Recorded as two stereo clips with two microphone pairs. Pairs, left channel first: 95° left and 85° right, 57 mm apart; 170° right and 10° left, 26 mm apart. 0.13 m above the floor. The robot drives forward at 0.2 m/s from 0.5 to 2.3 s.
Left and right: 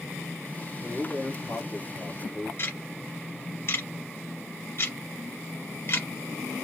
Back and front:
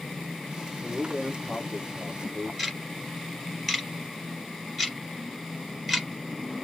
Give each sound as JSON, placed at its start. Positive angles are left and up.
{"t": 0.8, "sound": "a man speaking", "azimuth_deg": 120, "distance_m": 2.0}
{"t": 2.6, "sound": "ticking", "azimuth_deg": 110, "distance_m": 2.5}